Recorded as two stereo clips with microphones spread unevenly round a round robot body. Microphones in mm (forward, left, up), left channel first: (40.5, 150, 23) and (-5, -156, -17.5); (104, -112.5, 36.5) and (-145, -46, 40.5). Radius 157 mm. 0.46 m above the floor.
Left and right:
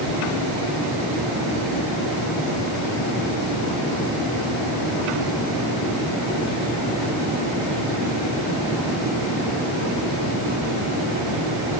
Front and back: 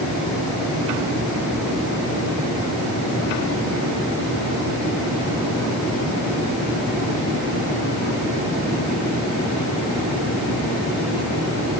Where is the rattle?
I don't hear a rattle.